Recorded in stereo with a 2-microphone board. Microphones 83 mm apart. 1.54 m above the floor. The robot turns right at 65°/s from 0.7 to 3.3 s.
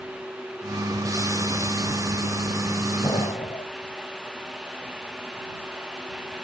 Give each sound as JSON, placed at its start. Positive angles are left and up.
{"t": 3.0, "sound": "an explosion", "side_deg": 75}